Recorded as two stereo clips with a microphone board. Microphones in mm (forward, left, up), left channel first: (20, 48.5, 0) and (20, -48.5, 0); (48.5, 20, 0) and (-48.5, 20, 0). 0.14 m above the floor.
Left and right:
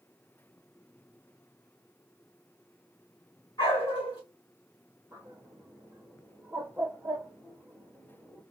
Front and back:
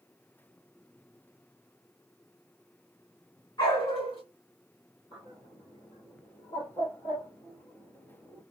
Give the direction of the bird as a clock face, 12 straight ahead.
1 o'clock.